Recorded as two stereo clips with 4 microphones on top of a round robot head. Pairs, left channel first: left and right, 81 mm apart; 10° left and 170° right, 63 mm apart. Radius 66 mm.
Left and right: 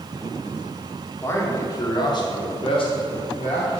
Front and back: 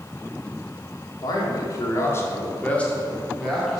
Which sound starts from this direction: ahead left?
A man speaking, at 1.2 s.